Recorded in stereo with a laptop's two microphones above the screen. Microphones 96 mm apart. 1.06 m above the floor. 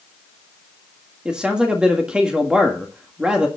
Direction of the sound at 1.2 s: 10° right (ahead or behind).